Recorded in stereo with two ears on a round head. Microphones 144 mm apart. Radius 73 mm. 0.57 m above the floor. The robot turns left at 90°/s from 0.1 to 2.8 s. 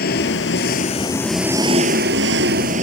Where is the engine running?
110° left; by 2.9 s 130° right.